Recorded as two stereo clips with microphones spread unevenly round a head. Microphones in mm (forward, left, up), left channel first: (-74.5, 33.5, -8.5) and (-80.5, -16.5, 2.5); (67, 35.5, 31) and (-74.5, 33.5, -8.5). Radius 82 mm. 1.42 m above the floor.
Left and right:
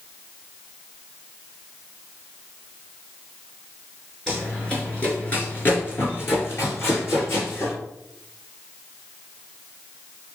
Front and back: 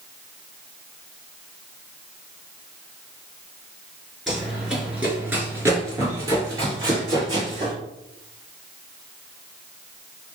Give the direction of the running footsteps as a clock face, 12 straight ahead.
1 o'clock.